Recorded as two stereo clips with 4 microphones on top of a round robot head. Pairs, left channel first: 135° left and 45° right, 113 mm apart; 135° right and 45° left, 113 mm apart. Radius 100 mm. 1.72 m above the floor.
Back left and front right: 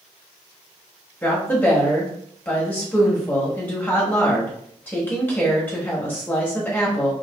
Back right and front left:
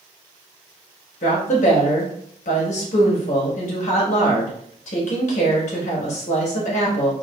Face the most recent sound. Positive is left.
turn(degrees=-155)